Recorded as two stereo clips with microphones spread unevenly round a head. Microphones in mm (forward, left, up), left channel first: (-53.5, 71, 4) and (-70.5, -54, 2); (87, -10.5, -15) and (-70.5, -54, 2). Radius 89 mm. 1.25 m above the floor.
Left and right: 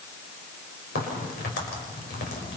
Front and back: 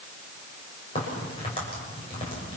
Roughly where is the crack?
Left.